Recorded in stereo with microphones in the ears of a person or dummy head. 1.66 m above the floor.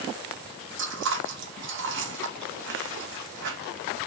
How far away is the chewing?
About 0.8 m.